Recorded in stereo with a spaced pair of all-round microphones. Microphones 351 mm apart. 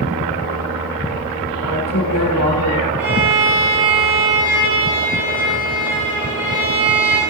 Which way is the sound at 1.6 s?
65° left (ahead or behind).